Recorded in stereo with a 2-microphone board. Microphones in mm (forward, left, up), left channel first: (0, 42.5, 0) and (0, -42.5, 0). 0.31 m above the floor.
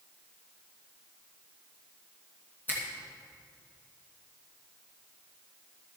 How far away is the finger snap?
About 3 m.